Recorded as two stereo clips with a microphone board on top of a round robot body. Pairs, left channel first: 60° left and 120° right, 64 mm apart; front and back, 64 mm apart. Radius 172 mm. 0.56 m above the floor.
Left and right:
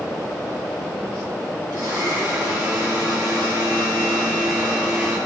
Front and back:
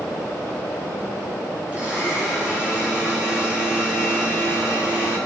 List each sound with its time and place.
1.7 s a blender: 110° right, 4.5 m